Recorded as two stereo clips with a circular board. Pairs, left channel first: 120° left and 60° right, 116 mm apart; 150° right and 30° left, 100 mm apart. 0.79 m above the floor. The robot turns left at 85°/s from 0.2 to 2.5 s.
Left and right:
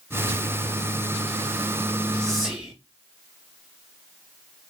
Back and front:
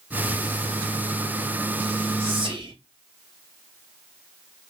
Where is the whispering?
45° left, 0.7 m; by 2.7 s 20° left, 0.7 m.